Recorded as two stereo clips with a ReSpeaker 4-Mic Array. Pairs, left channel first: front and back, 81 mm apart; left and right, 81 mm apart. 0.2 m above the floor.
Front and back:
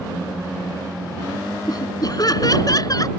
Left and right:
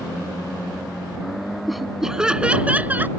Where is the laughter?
Straight ahead; by 3.1 s 25° right.